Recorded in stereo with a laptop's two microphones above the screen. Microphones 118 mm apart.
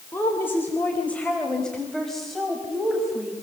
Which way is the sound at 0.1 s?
20° left (ahead or behind).